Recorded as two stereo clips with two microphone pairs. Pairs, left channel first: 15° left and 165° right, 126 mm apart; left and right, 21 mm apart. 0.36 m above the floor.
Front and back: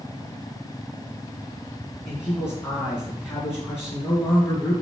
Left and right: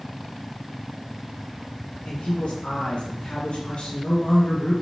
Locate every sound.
2.0 s a man speaking: 90° left, 3.5 m